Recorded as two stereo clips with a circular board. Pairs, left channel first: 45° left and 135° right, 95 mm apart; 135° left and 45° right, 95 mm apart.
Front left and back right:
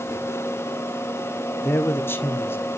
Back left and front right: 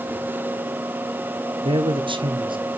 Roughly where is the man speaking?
Ahead.